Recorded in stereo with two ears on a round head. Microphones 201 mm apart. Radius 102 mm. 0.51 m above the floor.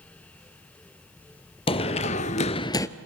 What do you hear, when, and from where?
1.7 s running footsteps: 25° left (ahead or behind), 0.9 m; by 2.9 s 15° left (ahead or behind), 0.7 m